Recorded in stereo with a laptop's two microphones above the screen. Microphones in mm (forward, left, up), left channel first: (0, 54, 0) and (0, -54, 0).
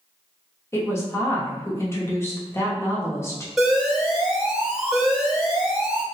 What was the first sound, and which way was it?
A woman speaking, 25° left (ahead or behind).